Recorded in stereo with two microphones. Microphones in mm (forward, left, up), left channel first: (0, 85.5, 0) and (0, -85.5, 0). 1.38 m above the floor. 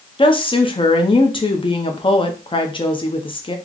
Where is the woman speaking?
30° left (ahead or behind), 0.7 m.